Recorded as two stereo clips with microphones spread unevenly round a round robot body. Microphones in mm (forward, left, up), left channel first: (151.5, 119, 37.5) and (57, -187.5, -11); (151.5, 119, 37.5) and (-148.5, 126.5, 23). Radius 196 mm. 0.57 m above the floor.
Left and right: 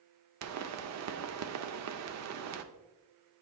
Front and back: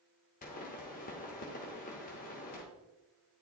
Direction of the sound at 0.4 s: 70° right.